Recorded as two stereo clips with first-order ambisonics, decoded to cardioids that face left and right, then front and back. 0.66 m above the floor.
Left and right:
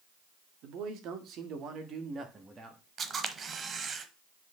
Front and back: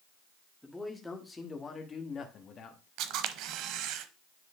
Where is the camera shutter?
155° right, 0.7 m.